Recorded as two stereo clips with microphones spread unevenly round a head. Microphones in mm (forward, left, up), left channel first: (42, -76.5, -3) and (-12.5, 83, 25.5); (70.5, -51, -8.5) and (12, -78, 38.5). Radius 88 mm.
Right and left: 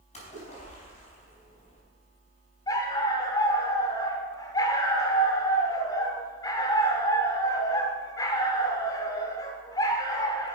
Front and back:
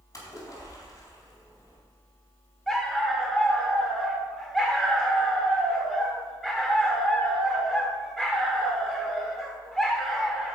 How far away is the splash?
About 4 m.